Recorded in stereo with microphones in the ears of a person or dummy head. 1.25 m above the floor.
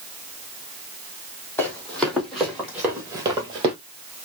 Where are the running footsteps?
10° left (ahead or behind), 2.5 m; by 3.8 s 20° right (ahead or behind), 1.4 m.